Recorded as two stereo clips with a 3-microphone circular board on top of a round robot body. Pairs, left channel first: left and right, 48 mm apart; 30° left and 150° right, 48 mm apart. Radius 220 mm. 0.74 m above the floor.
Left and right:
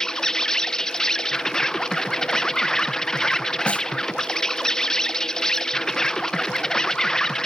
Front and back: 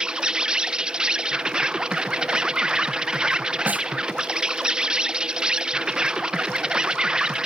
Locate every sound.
0.0 s an insect: 155° left
3.7 s a snare drum: 155° left